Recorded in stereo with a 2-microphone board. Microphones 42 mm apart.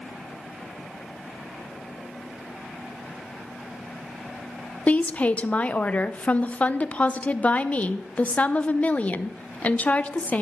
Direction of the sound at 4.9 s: 30° left (ahead or behind).